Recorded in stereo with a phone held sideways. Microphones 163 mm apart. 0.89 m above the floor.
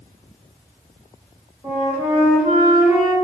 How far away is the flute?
About 1.4 m.